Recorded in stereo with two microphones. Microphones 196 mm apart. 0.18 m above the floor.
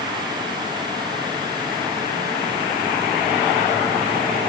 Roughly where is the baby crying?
I don't hear a baby crying.